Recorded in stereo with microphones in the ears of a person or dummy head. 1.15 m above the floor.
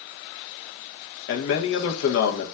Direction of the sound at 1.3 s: 75° left (ahead or behind).